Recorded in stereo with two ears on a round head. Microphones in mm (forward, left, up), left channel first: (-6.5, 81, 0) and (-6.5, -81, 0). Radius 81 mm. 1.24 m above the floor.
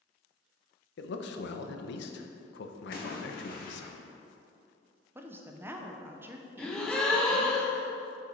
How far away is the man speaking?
About 0.6 m.